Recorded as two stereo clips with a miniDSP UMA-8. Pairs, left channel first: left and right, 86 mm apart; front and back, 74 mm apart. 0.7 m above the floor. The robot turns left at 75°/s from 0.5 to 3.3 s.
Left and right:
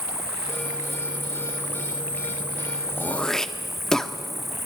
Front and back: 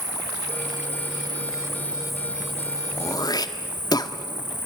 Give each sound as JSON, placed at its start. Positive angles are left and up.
{"t": 0.0, "sound": "an insect", "azimuth_deg": -150, "distance_m": 5.0}
{"t": 3.0, "sound": "throat clearing", "azimuth_deg": 30, "distance_m": 1.3}